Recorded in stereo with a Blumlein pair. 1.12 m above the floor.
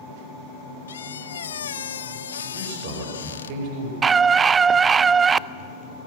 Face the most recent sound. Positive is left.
turn(degrees=-20)